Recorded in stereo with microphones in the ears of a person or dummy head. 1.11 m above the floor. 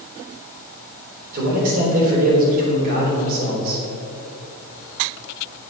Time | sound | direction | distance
1.3 | a man speaking | 55° right (ahead or behind) | 3.5 m